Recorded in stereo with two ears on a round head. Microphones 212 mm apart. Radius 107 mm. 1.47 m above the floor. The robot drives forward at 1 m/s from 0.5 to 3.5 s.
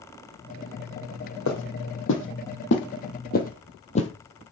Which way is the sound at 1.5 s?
55° left (ahead or behind).